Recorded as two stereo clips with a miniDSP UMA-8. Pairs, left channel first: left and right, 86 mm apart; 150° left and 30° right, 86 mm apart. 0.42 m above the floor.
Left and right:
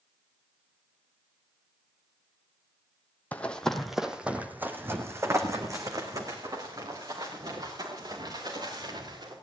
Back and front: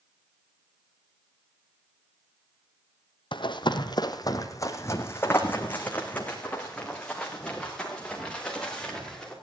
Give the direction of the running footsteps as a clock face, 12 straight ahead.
7 o'clock.